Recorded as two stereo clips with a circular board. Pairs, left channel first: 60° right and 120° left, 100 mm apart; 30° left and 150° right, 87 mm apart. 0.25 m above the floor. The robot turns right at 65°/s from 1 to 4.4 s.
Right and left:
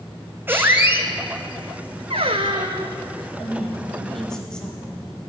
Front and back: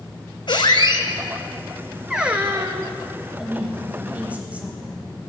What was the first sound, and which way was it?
A squeak, 50° left.